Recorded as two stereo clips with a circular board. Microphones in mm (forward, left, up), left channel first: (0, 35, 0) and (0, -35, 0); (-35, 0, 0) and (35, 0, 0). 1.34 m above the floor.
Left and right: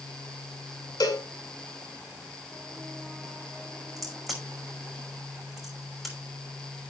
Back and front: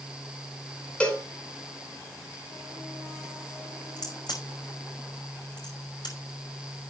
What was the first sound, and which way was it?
A cowbell, 105° left.